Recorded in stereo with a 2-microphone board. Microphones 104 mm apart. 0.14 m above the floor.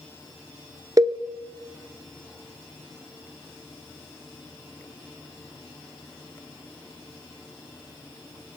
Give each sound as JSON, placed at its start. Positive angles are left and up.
{"t": 1.0, "sound": "a cowbell", "side_deg": -35, "distance_m": 0.7}